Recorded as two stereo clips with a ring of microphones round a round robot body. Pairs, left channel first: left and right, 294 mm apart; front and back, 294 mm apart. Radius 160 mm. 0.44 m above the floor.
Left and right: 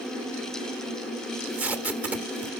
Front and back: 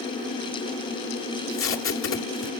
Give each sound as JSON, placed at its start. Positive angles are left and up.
{"t": 1.3, "sound": "tape being pulled", "azimuth_deg": -5, "distance_m": 1.4}